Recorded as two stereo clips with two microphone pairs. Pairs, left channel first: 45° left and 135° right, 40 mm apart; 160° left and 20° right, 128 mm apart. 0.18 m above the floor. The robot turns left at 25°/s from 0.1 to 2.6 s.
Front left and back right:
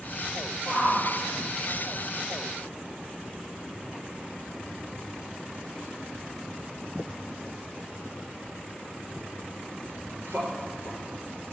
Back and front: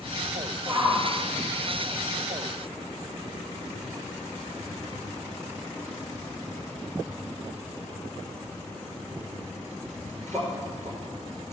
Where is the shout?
85° right, 3.5 m; by 11.5 s 135° right, 3.5 m.